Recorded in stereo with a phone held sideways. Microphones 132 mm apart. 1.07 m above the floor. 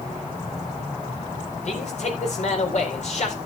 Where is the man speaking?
60° left (ahead or behind), 4.5 m.